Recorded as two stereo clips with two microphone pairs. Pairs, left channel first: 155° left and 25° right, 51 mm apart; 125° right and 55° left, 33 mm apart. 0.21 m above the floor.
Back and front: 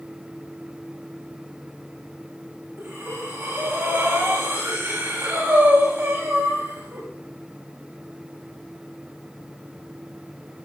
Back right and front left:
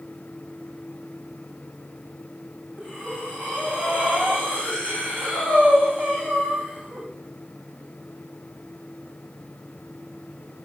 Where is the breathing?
25° left, 7.5 m.